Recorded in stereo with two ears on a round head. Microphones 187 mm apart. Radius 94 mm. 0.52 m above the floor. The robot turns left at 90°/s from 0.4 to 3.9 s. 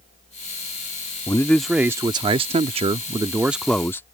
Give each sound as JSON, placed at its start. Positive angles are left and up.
{"t": 1.3, "sound": "a man speaking", "side_deg": 15}